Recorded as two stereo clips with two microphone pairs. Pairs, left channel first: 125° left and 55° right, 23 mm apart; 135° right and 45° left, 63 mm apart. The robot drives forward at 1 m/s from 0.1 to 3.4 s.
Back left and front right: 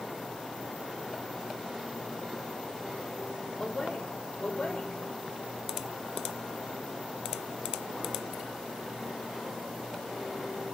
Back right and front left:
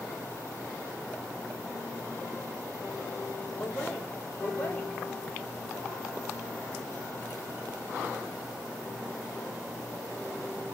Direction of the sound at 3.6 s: 150° left.